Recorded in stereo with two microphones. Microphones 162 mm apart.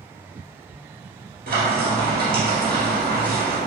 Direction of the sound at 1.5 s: 65° right (ahead or behind).